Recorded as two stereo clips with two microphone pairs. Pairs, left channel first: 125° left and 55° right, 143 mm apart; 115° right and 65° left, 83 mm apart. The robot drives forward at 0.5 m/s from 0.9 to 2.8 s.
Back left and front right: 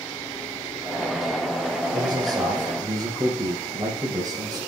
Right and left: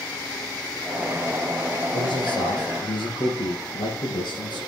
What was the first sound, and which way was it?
A man speaking, 115° right.